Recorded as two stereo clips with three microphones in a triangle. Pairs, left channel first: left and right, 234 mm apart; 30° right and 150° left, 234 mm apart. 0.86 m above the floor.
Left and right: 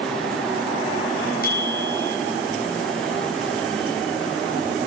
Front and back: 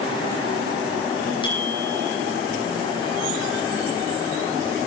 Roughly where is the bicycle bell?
Ahead left.